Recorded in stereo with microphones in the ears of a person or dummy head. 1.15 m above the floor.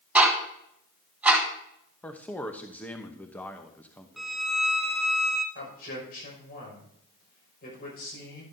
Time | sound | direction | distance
0.1 | ticking | 10° right (ahead or behind) | 2.5 m
2.0 | a man speaking | 10° left (ahead or behind) | 0.8 m
4.2 | a violin | centre (ahead or behind) | 0.5 m
5.5 | a man speaking | 55° left (ahead or behind) | 5.5 m